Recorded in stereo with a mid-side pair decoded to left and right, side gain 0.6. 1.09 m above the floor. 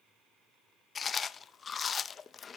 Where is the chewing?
35° left, 0.5 m.